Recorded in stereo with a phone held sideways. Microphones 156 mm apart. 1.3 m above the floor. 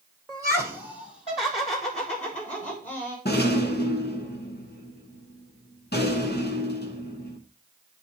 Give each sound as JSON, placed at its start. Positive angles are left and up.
{"t": 0.3, "sound": "laughter", "side_deg": 5, "distance_m": 0.7}
{"t": 3.2, "sound": "a rattle", "side_deg": 80, "distance_m": 1.1}